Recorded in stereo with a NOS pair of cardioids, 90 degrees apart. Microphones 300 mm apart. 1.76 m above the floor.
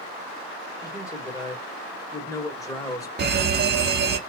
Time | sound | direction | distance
0.8 | a man speaking | 10° left | 2 m
3.2 | a fire alarm | 35° right | 1.0 m